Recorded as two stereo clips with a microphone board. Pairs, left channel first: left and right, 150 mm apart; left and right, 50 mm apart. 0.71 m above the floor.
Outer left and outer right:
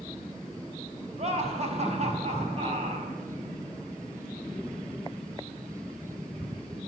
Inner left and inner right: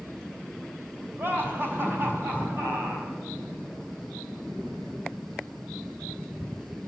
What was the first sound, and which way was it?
Laughter, 45° right (ahead or behind).